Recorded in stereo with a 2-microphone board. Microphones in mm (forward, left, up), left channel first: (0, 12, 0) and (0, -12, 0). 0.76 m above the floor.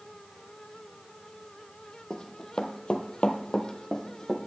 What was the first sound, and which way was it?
Running footsteps, 30° left (ahead or behind).